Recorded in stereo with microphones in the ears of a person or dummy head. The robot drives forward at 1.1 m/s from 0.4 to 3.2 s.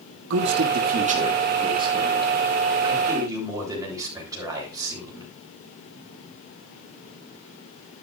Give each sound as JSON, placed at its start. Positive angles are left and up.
{"t": 0.3, "sound": "a man speaking", "side_deg": -65, "distance_m": 0.9}